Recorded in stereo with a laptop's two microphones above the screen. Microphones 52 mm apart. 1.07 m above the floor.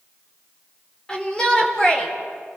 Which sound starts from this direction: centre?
A shout, at 1.1 s.